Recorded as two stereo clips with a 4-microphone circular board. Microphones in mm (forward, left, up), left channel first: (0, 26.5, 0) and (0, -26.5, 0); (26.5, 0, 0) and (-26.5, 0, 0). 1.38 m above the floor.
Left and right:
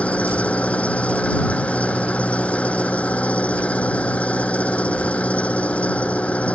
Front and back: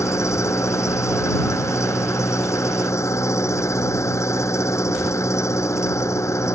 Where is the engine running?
25° left.